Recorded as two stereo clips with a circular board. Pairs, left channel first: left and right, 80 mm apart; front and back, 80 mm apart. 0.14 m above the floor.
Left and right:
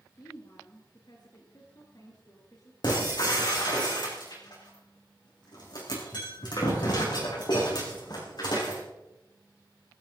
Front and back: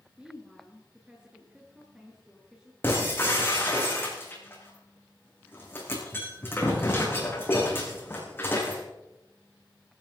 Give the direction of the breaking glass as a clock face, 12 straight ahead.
10 o'clock.